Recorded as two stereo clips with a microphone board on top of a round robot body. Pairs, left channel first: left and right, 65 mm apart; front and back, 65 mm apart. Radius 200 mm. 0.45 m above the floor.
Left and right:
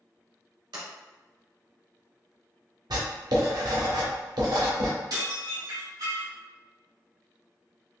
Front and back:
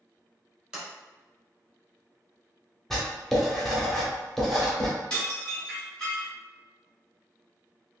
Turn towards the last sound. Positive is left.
turn(degrees=-75)